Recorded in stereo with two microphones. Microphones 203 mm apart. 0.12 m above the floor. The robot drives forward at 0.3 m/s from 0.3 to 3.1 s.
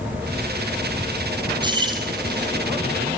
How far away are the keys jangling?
About 2.5 m.